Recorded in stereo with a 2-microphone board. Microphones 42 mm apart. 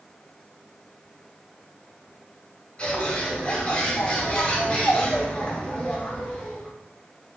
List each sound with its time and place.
2.8 s a bird: 25° left (ahead or behind), 0.8 m